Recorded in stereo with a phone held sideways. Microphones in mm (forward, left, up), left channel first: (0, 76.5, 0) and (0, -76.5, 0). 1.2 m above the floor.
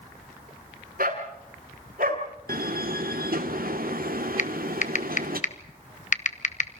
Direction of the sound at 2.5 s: 70° right (ahead or behind).